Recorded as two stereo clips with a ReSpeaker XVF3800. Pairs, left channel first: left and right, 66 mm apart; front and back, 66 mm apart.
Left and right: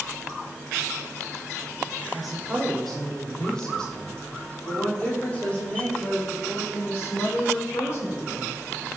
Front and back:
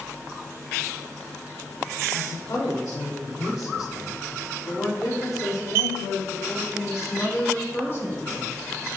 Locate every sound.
2.1 s a woman speaking: 5° right, 7 m; by 8.5 s 50° left, 9 m